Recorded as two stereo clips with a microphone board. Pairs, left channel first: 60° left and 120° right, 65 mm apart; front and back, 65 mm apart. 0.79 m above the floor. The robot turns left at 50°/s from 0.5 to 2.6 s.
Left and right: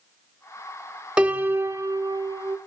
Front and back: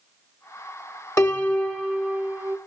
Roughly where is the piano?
Ahead right.